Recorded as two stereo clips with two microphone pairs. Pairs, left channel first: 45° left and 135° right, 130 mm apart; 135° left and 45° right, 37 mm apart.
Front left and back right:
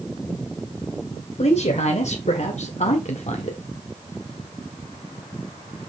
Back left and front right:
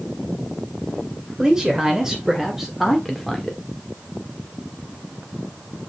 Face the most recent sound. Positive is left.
turn(degrees=55)